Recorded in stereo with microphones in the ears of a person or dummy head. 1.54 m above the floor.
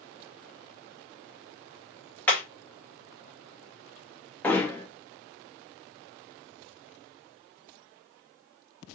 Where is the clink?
No clink in this recording.